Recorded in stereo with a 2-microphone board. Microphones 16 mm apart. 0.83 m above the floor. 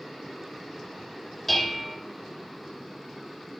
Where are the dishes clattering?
15° left (ahead or behind), 2 m.